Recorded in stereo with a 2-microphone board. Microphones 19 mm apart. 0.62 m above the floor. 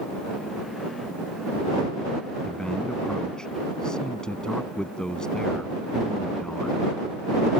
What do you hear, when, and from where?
2.4 s a man speaking: 45° left (ahead or behind)